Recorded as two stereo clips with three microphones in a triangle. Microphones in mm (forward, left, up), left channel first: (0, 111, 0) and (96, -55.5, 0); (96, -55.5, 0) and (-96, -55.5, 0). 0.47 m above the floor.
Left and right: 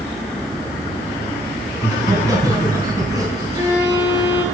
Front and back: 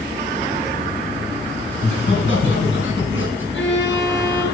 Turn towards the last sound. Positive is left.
turn(degrees=15)